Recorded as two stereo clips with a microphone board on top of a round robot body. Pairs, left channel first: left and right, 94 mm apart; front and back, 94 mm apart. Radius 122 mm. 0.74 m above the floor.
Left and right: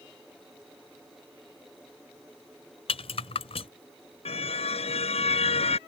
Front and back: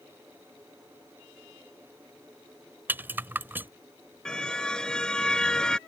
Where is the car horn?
80° left.